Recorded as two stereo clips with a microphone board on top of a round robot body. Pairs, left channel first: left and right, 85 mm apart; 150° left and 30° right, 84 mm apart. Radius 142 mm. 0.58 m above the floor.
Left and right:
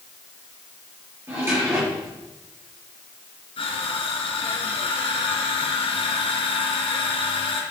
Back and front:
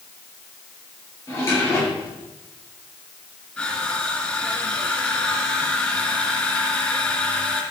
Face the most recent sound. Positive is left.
turn(degrees=75)